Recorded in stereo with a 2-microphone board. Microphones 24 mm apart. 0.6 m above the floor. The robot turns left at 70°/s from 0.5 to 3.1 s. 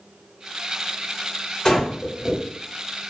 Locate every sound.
1.6 s breathing: 15° left (ahead or behind), 1.4 m; by 2.4 s 10° right (ahead or behind), 1.4 m